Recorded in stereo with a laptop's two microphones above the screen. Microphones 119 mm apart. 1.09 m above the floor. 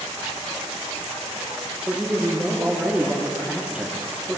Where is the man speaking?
10° right (ahead or behind), 2.5 m.